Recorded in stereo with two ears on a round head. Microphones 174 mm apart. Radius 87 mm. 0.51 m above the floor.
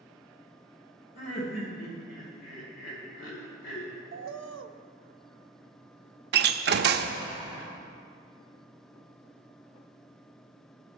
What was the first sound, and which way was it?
Laughter, 65° left (ahead or behind).